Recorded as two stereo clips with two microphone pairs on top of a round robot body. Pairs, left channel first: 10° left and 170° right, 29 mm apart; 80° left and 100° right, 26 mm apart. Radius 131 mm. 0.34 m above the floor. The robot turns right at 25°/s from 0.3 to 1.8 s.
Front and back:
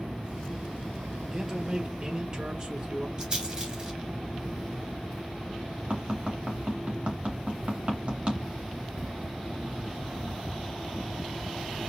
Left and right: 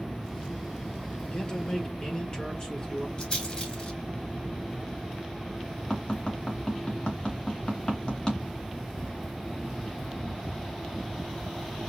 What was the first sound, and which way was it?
A man speaking, 125° left.